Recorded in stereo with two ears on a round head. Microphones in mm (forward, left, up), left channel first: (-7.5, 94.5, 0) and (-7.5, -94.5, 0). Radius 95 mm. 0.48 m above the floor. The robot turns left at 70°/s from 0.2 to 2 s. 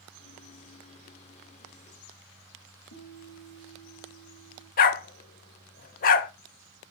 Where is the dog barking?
40° left (ahead or behind), 0.6 m.